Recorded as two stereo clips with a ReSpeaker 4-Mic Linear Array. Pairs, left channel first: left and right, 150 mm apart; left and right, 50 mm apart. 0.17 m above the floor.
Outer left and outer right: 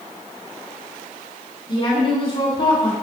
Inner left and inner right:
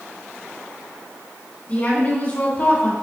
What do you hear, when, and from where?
1.7 s a woman speaking: 35° left (ahead or behind), 1.5 m